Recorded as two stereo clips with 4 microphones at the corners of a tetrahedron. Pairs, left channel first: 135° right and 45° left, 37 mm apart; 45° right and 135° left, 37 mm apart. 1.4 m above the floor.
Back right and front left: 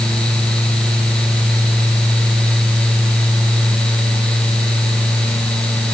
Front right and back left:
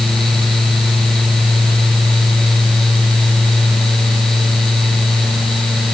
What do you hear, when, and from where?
Only background noise.